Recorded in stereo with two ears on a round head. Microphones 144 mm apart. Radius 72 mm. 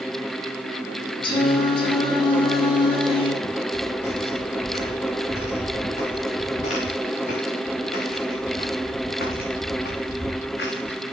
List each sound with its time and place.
1.2 s singing: 30° left (ahead or behind), 1.8 m
3.4 s footsteps: 40° left (ahead or behind), 6 m; by 11.0 s 70° left (ahead or behind), 2.5 m